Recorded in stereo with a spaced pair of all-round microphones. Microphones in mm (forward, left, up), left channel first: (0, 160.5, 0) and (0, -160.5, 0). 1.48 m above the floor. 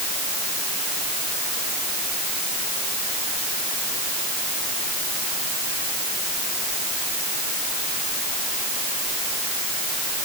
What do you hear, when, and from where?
Only background noise.